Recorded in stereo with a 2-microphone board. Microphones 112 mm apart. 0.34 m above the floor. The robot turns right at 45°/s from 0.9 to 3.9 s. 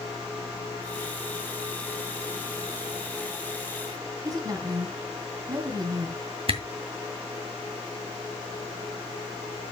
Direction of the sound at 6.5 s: 50° right (ahead or behind).